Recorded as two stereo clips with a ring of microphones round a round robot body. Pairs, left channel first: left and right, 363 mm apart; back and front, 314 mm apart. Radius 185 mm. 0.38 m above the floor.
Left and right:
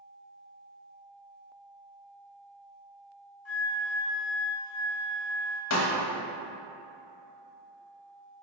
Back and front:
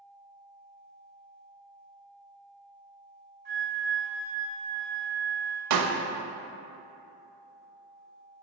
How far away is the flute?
About 1.6 m.